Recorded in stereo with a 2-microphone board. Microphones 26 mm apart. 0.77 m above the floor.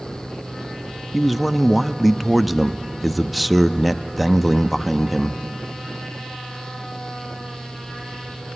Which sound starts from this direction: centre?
A man speaking, at 1.1 s.